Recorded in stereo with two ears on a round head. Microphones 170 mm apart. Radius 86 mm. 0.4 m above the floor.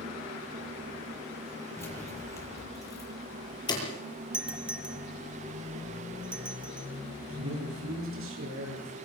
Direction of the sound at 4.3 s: 5° right (ahead or behind).